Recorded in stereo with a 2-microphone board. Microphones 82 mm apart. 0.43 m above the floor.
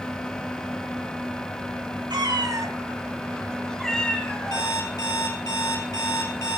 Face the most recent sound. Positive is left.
turn(degrees=45)  # may be behind; listen again after turning